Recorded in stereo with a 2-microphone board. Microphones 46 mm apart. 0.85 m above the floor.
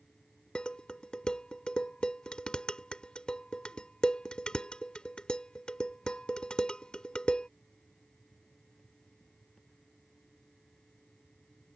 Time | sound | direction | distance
0.6 | dishes clattering | 20° left (ahead or behind) | ?